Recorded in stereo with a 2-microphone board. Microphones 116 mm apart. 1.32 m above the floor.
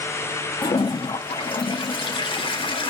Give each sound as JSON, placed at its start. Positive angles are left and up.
{"t": 0.6, "sound": "a toilet flushing", "side_deg": 50, "distance_m": 0.5}